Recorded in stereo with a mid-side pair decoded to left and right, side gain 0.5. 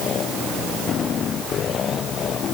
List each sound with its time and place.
Only background noise.